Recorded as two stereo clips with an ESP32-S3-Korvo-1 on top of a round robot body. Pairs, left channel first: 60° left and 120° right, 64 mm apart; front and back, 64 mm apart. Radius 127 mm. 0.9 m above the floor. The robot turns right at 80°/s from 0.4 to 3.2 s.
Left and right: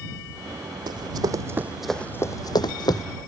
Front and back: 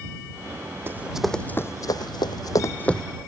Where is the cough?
I don't hear a cough.